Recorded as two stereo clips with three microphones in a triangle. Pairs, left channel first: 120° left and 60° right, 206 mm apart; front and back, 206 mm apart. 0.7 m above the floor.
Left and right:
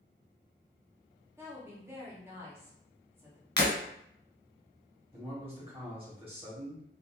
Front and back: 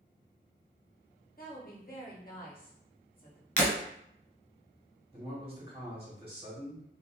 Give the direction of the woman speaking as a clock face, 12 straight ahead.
12 o'clock.